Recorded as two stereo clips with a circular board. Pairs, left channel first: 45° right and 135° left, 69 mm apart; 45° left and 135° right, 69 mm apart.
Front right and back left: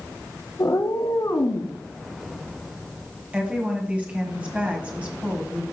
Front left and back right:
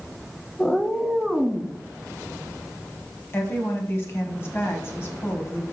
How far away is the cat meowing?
About 0.6 m.